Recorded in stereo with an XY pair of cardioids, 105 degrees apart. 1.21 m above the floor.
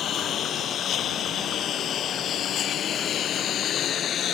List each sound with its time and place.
0.0 s a lawn mower: 65° left; by 4.3 s 60° left